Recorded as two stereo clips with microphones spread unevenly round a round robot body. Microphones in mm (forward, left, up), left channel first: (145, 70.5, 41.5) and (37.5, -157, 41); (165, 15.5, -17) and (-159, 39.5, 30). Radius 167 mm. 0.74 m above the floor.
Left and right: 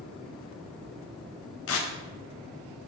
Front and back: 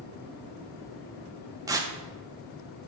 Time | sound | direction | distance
1.7 | tearing paper | 95° left | 0.7 m